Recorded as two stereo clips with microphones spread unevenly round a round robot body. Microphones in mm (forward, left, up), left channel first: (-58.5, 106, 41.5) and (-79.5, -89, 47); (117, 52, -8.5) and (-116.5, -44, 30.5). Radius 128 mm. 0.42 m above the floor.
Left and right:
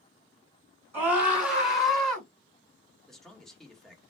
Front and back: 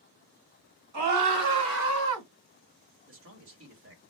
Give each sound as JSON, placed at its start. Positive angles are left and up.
{"t": 0.9, "sound": "a scream", "azimuth_deg": -175, "distance_m": 4.0}
{"t": 3.1, "sound": "a man speaking", "azimuth_deg": 170, "distance_m": 1.7}